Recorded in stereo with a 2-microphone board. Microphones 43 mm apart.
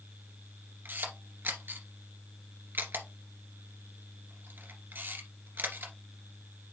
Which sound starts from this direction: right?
A camera shutter, at 0.8 s.